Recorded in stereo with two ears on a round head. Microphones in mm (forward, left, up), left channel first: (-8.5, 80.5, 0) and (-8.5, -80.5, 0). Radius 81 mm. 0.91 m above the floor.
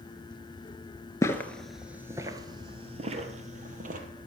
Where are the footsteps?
15° left (ahead or behind), 0.9 m; by 4.0 s 45° right (ahead or behind), 1.8 m.